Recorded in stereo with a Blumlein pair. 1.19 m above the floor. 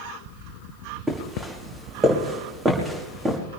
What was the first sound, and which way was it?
Footsteps, 10° right.